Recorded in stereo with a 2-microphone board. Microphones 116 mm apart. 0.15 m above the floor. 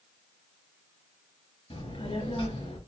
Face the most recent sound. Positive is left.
turn(degrees=55)  # may be behind; listen again after turning